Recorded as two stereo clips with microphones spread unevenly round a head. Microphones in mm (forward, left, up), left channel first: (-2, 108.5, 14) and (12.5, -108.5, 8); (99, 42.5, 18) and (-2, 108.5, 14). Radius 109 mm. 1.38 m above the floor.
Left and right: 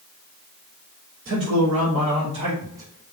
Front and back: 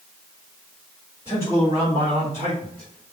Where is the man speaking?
135° right, 3.5 m; by 3.1 s 175° right, 2.0 m.